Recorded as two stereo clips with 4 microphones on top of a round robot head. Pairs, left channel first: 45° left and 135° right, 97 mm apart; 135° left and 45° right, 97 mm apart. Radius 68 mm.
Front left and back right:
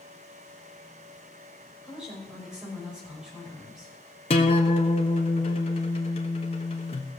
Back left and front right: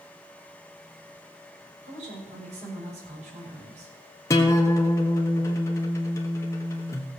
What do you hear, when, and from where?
1.8 s a woman speaking: 55° right, 6.5 m
4.3 s a guitar: 75° left, 1.1 m